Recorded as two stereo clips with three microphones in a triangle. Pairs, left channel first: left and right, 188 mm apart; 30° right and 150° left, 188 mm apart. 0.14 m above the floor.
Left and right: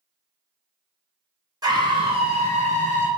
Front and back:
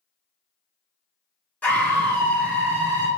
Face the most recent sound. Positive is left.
turn(degrees=-110)